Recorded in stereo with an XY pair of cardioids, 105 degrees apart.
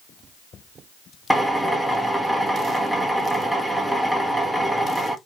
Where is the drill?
Straight ahead, 1.4 m.